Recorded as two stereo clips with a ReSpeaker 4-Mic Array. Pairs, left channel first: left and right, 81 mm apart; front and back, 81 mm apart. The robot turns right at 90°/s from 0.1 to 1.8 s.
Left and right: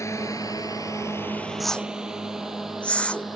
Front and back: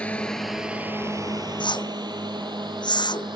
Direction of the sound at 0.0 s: 70° left.